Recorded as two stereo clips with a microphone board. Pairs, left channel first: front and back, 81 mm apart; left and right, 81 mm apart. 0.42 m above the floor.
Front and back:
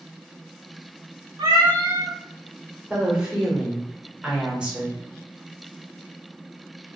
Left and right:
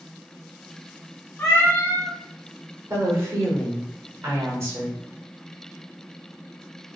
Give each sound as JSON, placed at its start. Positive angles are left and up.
{"t": 1.4, "sound": "a cat meowing", "azimuth_deg": 150, "distance_m": 0.9}
{"t": 2.9, "sound": "a woman speaking", "azimuth_deg": -110, "distance_m": 0.9}